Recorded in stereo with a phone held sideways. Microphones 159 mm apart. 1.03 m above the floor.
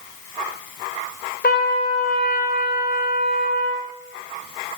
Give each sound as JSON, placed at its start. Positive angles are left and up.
{"t": 1.4, "sound": "a trumpet", "side_deg": 75, "distance_m": 2.0}